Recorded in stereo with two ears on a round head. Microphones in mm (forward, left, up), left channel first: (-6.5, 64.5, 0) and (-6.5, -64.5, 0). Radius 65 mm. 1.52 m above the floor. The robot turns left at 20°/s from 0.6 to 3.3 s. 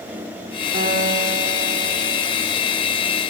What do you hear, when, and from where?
0.7 s a guitar: 65° right (ahead or behind), 7 m; by 2.2 s 75° right (ahead or behind), 7 m